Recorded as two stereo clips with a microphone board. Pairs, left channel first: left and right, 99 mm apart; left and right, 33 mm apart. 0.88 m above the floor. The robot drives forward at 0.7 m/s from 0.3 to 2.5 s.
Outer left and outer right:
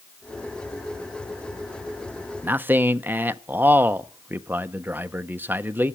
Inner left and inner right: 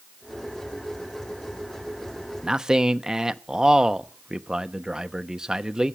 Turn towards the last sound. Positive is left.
turn(degrees=-20)  # may be behind; listen again after turning